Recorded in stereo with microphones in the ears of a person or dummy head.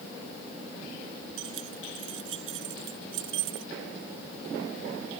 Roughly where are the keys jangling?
Right.